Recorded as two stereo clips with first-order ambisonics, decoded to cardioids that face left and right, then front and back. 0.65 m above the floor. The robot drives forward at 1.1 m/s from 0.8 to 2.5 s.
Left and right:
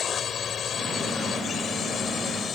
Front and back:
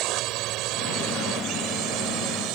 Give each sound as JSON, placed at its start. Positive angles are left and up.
{"t": 0.0, "sound": "a drone", "azimuth_deg": 155}